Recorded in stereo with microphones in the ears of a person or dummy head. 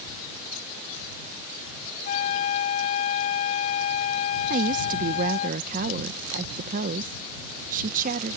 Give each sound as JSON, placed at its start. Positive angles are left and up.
{"t": 2.0, "sound": "a flute", "side_deg": 40}
{"t": 4.5, "sound": "a woman speaking", "side_deg": -50}